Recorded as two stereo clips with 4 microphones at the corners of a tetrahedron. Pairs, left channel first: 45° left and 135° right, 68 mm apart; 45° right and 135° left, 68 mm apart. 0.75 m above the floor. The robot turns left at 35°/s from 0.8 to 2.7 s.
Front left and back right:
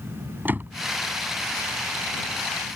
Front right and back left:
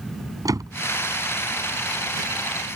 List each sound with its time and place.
0.5 s a door slam: 165° left